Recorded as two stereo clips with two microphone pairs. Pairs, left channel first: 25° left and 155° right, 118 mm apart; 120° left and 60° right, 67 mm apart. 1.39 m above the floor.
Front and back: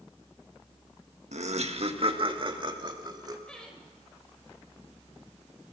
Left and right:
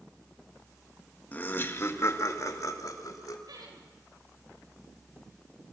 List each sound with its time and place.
1.3 s laughter: 175° right, 1.6 m; by 3.4 s 145° left, 3.5 m
3.5 s laughter: 60° right, 6.5 m